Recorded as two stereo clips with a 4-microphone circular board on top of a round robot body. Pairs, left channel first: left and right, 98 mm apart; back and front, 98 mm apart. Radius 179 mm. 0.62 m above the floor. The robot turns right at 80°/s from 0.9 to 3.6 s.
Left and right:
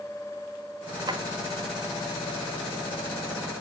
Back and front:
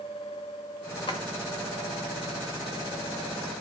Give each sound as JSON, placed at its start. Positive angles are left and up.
{"t": 1.1, "sound": "a drawer", "azimuth_deg": -140, "distance_m": 1.3}